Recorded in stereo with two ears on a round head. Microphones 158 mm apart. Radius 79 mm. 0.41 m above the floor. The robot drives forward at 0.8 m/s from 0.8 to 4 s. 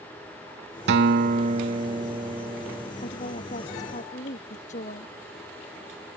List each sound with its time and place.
0.9 s a guitar: 70° right (ahead or behind); by 2.9 s 20° right (ahead or behind)
3.0 s a woman speaking: 45° left (ahead or behind)